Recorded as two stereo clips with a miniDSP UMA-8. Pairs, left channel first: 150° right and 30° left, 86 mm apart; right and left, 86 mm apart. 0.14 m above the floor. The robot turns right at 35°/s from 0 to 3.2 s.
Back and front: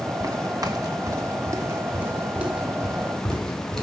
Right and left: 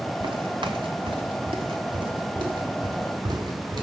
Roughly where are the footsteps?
Left.